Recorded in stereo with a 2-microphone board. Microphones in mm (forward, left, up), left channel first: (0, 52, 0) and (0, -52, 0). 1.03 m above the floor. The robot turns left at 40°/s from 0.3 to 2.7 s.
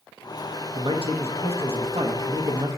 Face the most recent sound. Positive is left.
turn(degrees=-140)